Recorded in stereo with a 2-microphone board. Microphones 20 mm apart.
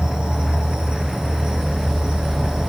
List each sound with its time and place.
0.0 s an insect: 45° right (ahead or behind), 0.9 m